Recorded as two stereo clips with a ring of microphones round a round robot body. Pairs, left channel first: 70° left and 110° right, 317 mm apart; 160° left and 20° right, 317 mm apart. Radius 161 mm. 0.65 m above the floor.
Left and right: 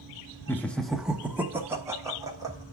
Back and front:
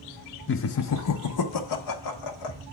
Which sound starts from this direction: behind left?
Laughter, at 0.5 s.